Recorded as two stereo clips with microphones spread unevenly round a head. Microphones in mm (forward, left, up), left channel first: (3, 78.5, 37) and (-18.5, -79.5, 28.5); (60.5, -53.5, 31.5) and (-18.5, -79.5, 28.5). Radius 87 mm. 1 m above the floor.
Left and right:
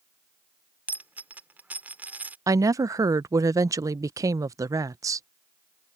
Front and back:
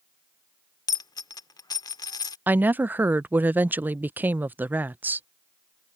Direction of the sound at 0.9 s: 15° right.